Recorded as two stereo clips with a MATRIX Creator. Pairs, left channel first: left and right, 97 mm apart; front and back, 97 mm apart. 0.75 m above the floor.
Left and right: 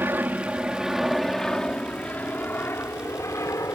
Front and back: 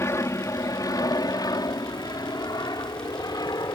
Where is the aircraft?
35° right; by 3.8 s 40° left.